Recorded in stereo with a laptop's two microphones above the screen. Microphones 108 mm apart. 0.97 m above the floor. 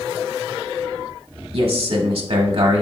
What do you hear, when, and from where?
1.5 s a man speaking: 60° right (ahead or behind), 0.9 m